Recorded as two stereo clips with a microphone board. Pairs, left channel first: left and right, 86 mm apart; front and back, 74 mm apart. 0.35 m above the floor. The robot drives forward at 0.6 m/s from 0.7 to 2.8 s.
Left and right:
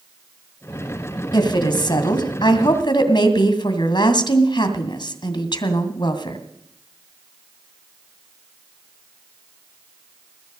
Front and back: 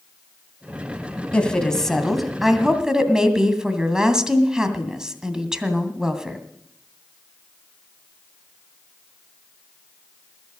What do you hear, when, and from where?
1.3 s a woman speaking: 75° left, 2.5 m; by 6.4 s 100° left, 2 m